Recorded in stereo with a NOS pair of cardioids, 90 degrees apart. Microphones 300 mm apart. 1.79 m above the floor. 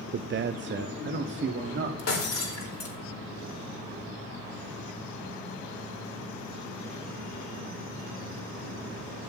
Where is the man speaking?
35° right, 0.5 m.